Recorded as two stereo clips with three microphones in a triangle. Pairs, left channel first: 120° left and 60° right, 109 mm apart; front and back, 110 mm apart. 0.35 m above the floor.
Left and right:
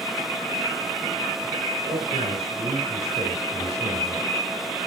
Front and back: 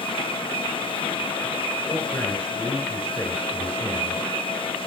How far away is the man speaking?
About 4 m.